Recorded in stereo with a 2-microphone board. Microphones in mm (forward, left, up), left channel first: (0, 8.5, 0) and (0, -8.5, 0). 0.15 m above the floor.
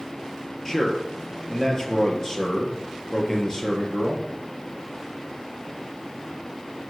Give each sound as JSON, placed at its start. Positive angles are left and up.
{"t": 0.7, "sound": "a man speaking", "side_deg": 30, "distance_m": 3.5}